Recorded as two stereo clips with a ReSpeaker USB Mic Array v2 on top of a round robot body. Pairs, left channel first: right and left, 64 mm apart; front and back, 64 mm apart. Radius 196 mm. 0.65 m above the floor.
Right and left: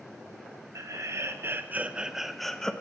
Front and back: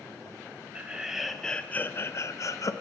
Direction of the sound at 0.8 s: 110° left.